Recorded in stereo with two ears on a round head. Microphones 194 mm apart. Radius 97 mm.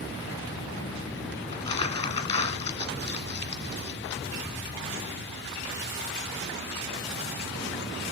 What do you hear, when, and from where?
1.5 s crumpling: 30° left (ahead or behind), 1.4 m